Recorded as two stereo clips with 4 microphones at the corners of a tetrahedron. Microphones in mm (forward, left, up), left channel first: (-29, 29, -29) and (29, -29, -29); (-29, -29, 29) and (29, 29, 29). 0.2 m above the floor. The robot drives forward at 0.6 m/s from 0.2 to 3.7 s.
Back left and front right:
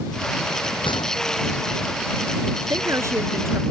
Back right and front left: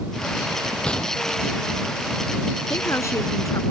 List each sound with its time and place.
0.8 s a gunshot: 145° left
2.7 s a woman speaking: 85° right; by 3.6 s 95° right